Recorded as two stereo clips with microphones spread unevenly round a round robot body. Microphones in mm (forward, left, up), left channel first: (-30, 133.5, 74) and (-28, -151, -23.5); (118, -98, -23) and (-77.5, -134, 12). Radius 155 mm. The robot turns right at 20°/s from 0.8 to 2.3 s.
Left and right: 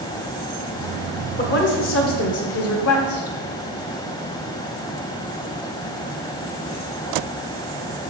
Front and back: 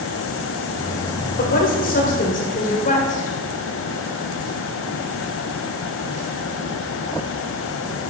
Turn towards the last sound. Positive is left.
turn(degrees=45)